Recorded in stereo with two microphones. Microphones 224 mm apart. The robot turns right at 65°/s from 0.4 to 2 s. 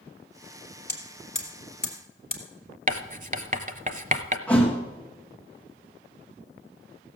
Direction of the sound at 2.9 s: 35° right (ahead or behind).